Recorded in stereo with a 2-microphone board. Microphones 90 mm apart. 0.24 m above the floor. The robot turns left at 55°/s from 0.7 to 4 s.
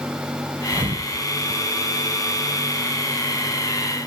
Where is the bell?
No bell in this recording.